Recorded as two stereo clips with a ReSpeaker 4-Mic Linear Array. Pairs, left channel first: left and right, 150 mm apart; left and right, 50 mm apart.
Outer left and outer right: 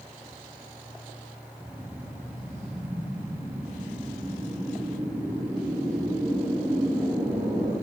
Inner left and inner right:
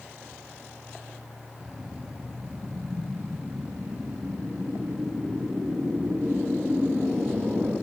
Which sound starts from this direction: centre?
A whoosh, at 1.6 s.